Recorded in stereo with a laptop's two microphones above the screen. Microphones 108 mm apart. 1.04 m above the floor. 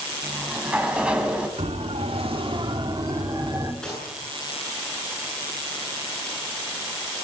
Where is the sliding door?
10° right (ahead or behind), 4 m.